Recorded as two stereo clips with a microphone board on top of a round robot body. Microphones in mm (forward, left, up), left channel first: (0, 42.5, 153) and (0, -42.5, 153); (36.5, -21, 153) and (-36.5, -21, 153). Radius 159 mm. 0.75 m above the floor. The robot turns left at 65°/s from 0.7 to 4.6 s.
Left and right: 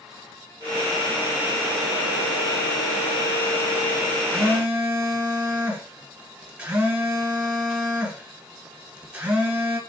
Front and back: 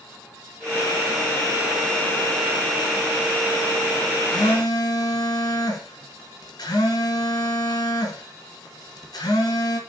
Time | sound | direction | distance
4.3 | a phone buzzing | straight ahead | 1.1 m